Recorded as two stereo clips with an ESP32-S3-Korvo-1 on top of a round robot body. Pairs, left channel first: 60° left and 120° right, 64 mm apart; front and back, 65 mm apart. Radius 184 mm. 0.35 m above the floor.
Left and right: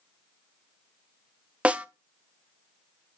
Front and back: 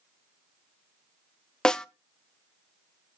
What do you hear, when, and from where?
1.6 s a snare drum: 70° right, 0.7 m